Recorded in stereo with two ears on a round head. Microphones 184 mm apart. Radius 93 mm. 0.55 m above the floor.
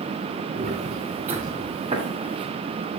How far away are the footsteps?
About 3 m.